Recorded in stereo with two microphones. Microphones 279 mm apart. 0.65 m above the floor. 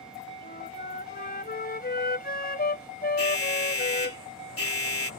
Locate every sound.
0.4 s a flute: 35° left (ahead or behind)
3.2 s an alarm: 50° left (ahead or behind)